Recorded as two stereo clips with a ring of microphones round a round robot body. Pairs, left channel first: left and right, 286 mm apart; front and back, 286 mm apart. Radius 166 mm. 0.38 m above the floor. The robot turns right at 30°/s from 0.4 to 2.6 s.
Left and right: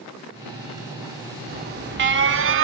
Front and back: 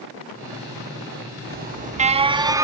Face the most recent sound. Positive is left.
turn(degrees=-105)